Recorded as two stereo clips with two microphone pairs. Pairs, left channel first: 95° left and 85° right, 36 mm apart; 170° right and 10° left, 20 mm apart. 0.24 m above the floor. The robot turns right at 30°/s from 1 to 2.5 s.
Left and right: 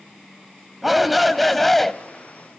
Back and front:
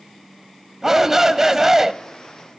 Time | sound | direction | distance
0.8 | a shout | 5° right | 1.0 m